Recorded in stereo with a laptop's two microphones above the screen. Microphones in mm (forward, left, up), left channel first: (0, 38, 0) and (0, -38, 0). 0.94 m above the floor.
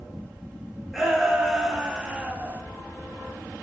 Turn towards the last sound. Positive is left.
turn(degrees=-25)  # may be behind; listen again after turning